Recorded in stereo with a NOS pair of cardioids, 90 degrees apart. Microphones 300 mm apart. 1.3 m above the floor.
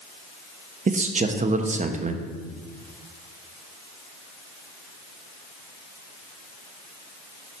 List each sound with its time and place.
0.9 s a man speaking: 25° right, 0.8 m